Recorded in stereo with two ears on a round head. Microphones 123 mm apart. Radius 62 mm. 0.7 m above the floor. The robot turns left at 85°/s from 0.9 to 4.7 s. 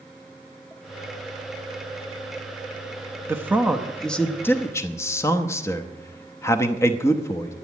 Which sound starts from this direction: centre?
A man speaking, at 3.3 s.